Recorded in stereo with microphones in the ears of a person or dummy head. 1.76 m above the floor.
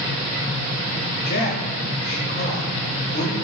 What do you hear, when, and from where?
1.2 s a man speaking: 55° left (ahead or behind), 0.9 m